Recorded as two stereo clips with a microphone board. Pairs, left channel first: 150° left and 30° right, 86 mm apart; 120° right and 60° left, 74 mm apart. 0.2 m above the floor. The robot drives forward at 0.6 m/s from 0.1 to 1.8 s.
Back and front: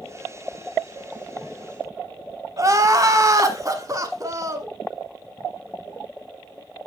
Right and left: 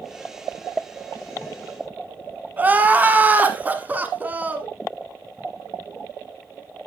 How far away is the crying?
About 0.9 m.